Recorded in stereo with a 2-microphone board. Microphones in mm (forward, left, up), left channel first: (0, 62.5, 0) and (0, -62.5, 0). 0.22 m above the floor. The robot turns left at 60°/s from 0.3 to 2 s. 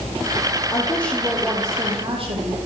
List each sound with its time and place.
0.7 s a woman speaking: 30° left, 7.5 m; by 2.6 s 45° right, 7.5 m